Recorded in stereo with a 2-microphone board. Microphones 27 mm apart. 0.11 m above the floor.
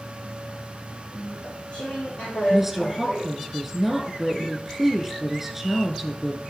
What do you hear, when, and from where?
1.1 s chewing: 45° left (ahead or behind), 4.5 m
2.5 s a woman speaking: 5° right (ahead or behind), 4 m